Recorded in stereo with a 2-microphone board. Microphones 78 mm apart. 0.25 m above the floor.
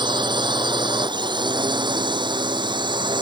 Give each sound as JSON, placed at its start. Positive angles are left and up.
{"t": 0.0, "sound": "a drone", "side_deg": -80}